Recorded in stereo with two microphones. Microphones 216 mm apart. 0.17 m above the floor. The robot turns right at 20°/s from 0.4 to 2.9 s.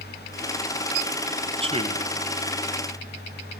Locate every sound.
1.6 s a man speaking: 25° right (ahead or behind), 1.2 m